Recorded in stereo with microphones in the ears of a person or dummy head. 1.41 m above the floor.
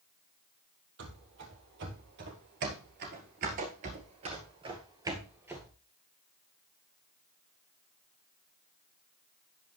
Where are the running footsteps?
60° right (ahead or behind), 2.5 m; by 5.7 s 5° right (ahead or behind), 1.9 m.